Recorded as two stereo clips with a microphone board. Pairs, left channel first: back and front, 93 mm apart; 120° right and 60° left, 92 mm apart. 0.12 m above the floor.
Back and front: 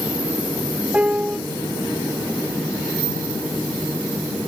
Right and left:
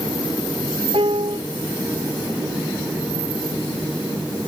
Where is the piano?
75° left.